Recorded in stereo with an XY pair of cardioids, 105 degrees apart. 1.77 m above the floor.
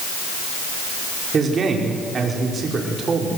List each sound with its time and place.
1.3 s a man speaking: 45° right, 5 m